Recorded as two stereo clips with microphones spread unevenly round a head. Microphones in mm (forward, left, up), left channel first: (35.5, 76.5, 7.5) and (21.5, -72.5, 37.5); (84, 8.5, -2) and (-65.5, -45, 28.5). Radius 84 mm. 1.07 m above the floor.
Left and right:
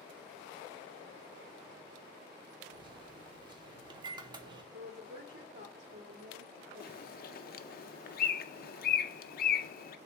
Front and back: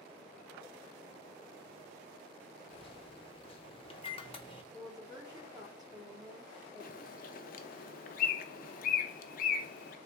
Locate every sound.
2.7 s a microwave: 30° right, 0.8 m
4.7 s a woman speaking: 90° right, 1.9 m
6.8 s a bird: 60° left, 0.5 m